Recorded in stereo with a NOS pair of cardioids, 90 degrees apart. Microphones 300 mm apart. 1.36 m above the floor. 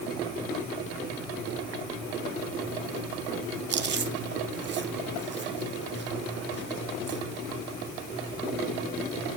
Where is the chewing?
40° right, 1.2 m.